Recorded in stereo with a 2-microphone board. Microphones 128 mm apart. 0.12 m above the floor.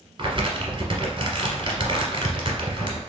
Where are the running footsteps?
No running footsteps in this recording.